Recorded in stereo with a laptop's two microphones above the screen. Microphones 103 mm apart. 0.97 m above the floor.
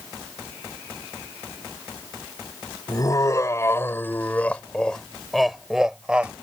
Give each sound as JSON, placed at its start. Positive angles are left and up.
{"t": 2.9, "sound": "laughter", "side_deg": 35}